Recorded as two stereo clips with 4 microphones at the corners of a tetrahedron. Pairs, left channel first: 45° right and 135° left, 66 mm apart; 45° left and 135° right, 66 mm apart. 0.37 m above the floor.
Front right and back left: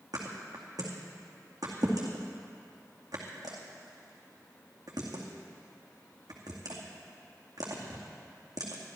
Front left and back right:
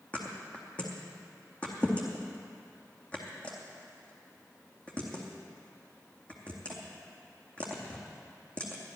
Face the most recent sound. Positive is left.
turn(degrees=115)